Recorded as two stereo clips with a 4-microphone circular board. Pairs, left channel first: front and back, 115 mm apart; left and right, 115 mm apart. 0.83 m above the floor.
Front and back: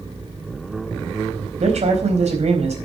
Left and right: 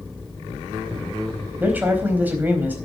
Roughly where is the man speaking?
Behind.